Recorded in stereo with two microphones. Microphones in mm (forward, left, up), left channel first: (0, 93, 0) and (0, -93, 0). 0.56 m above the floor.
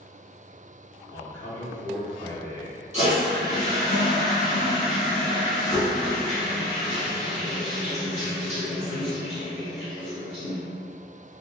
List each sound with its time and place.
1.1 s a man speaking: 15° left (ahead or behind), 1.2 m
2.9 s a toilet flushing: 35° left (ahead or behind), 1.7 m